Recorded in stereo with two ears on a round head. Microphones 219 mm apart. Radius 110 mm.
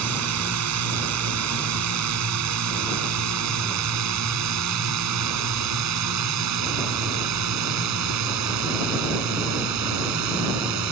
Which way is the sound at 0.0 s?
70° right (ahead or behind).